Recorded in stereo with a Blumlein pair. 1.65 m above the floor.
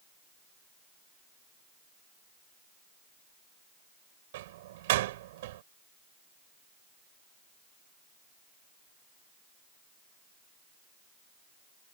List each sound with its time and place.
4.3 s a door slam: 55° right